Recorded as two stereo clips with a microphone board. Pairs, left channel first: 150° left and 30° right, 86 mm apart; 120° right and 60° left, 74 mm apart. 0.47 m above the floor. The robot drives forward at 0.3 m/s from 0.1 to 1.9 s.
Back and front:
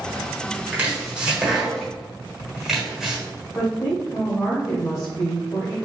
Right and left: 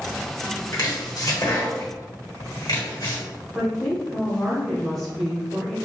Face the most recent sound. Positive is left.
turn(degrees=155)